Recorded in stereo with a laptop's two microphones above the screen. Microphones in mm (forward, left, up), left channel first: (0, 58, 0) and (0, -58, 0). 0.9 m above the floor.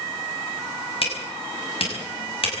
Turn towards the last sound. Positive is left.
turn(degrees=60)  # may be behind; listen again after turning